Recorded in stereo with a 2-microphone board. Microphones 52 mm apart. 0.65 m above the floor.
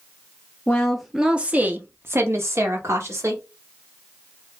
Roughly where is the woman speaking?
Left.